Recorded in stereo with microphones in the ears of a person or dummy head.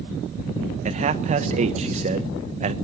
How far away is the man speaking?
About 1.1 m.